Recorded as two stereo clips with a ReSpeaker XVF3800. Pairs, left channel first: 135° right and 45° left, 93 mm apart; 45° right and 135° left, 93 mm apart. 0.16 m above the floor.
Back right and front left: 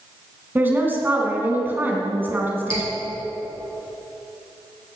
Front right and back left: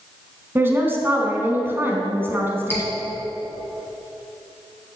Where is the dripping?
110° right, 3 m.